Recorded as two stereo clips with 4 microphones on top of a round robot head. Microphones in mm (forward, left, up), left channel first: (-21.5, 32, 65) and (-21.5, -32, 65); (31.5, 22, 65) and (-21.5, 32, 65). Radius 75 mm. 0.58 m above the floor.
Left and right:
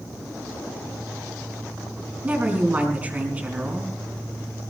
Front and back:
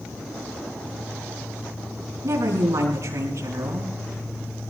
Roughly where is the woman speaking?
Behind right.